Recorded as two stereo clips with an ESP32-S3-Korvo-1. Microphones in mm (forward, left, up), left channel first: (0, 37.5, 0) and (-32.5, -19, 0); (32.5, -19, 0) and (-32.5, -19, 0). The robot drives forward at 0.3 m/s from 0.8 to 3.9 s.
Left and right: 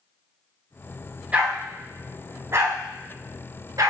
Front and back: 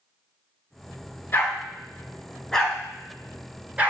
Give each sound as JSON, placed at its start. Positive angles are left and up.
{"t": 1.3, "sound": "a dog barking", "azimuth_deg": -55, "distance_m": 0.9}